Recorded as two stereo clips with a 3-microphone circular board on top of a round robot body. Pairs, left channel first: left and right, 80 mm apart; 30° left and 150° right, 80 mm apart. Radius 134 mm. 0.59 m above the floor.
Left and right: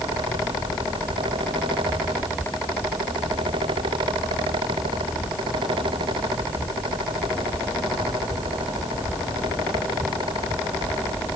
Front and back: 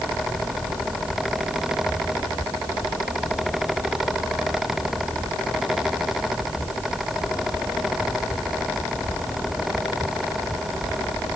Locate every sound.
Only background noise.